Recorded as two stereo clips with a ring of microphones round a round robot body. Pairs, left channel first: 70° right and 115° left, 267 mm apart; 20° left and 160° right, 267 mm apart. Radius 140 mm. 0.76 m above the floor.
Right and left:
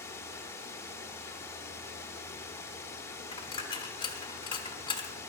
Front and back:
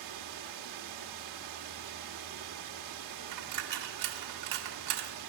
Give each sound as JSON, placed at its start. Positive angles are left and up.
{"t": 0.0, "sound": "running water", "azimuth_deg": -150, "distance_m": 1.5}
{"t": 3.3, "sound": "a dropped coin", "azimuth_deg": -140, "distance_m": 1.5}